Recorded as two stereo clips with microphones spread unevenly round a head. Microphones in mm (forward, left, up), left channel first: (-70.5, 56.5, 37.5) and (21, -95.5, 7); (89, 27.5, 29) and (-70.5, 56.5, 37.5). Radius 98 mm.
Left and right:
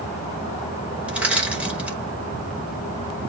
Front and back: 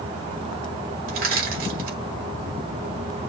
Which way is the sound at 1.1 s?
145° right.